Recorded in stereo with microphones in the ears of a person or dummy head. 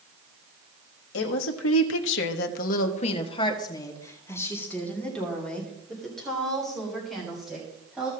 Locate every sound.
1.1 s a woman speaking: 65° left (ahead or behind), 1.4 m; by 8.1 s centre (ahead or behind), 5 m